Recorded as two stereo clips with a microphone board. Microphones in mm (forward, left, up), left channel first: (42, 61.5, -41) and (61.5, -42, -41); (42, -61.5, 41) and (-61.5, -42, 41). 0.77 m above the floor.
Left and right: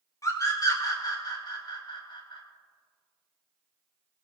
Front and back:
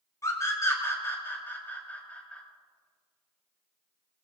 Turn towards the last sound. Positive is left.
turn(degrees=65)